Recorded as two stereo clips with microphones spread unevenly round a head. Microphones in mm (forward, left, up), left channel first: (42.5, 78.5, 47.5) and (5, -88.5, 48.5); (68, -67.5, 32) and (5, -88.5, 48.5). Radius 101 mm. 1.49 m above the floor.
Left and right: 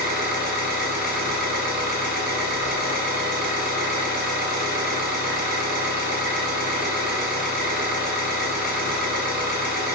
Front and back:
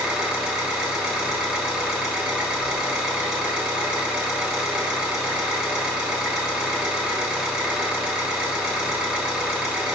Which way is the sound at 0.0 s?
85° right.